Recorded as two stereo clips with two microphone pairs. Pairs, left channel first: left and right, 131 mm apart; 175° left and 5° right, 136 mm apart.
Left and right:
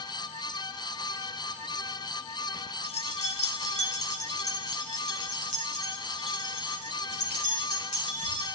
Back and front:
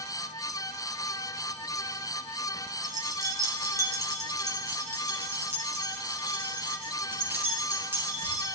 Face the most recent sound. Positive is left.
turn(degrees=65)